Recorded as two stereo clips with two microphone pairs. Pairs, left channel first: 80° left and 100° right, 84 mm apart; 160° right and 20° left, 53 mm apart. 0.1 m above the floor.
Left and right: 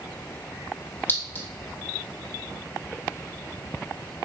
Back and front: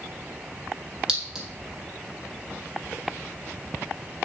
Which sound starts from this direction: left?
A clink, at 1.1 s.